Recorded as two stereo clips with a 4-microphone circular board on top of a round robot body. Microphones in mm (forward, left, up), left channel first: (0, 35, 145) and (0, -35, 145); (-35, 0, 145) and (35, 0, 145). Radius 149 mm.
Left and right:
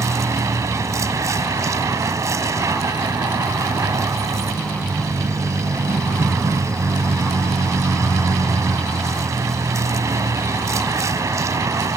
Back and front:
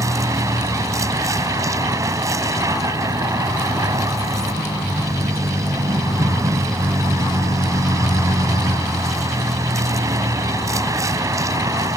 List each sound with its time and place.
0.0 s a vehicle: 45° right